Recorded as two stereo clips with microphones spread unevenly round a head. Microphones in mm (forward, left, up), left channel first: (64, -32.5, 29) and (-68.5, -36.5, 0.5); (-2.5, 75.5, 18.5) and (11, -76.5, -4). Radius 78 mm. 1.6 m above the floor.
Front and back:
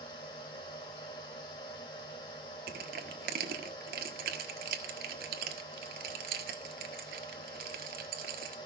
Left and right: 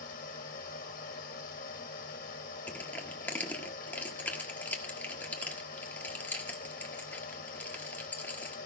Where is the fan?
60° left, 2.5 m.